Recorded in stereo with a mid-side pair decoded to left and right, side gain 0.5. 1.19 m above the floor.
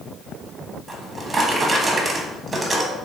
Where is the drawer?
25° right, 0.9 m.